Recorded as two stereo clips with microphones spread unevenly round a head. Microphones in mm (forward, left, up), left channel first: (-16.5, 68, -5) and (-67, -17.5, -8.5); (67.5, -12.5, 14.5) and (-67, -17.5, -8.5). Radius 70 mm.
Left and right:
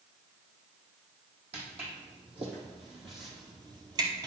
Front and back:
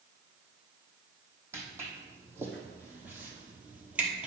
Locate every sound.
1.5 s footsteps: 100° right, 3 m; by 4.3 s 85° right, 1.5 m